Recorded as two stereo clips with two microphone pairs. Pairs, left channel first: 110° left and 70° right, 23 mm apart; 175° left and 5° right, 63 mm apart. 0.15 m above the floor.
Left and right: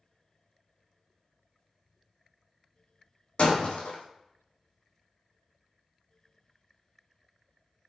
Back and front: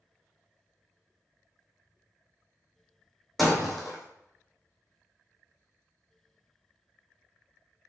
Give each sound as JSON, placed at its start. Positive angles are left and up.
{"t": 3.4, "sound": "breaking glass", "azimuth_deg": 85, "distance_m": 1.1}